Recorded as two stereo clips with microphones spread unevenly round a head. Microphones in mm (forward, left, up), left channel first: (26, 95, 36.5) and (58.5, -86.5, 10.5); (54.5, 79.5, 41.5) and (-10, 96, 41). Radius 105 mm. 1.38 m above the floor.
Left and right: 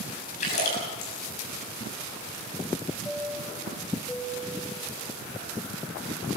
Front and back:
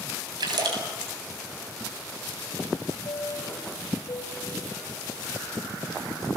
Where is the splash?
155° left, 7 m.